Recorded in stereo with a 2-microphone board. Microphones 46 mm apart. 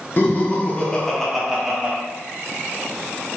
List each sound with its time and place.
0.2 s laughter: 40° left (ahead or behind), 0.9 m; by 1.9 s 20° right (ahead or behind), 0.7 m